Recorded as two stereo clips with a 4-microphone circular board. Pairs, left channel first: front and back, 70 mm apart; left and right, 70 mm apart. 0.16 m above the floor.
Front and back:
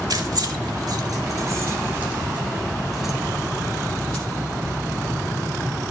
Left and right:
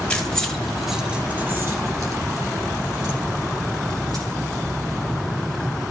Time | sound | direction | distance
0.1 | keys jangling | 165° left | 2.5 m